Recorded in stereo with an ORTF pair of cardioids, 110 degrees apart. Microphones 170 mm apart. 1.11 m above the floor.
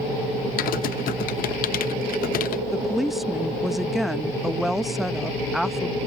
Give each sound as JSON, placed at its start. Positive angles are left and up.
{"t": 0.6, "sound": "typing on a keyboard", "azimuth_deg": 65}
{"t": 2.7, "sound": "a woman speaking", "azimuth_deg": 0}